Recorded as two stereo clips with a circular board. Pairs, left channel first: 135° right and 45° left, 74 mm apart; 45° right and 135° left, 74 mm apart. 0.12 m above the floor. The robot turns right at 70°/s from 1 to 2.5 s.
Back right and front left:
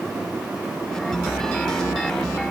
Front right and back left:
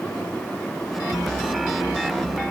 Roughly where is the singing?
No singing in this recording.